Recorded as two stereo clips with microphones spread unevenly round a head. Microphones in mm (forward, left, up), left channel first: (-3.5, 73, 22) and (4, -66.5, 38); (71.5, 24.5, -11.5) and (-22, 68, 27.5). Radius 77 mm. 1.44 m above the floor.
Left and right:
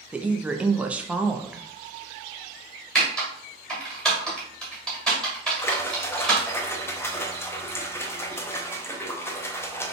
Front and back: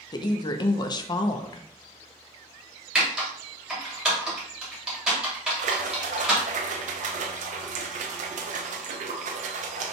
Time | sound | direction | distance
0.1 | a woman speaking | straight ahead | 0.5 m
3.0 | typing on a keyboard | 170° right | 1.3 m
5.6 | a splash | 160° left | 0.6 m